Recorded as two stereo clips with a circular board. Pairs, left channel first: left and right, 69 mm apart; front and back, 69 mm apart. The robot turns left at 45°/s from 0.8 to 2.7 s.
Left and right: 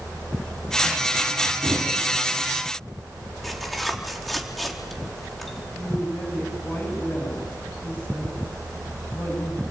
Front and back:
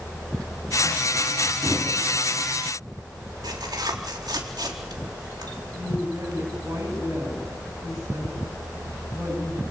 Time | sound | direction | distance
1.6 | a thud | 105° right | 6.5 m
3.4 | tearing paper | straight behind | 3.5 m
5.7 | a woman speaking | 150° left | 9.5 m